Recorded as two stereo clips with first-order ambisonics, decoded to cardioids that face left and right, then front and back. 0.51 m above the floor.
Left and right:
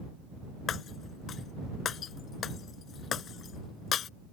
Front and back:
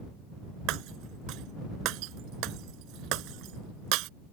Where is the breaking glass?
150° left.